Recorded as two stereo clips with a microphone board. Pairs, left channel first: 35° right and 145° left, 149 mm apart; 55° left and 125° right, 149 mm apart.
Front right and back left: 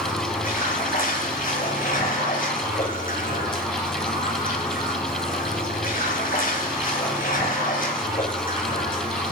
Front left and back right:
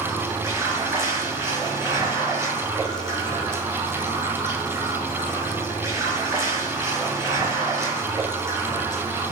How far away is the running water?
About 6.5 m.